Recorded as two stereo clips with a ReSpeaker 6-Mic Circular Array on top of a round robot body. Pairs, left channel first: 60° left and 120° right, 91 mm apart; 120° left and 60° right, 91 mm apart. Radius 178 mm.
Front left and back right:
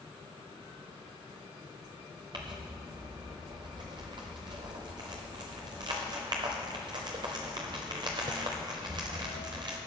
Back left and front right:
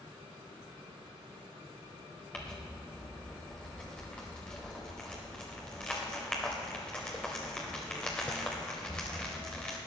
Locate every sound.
2.3 s crumpling: 160° right, 0.6 m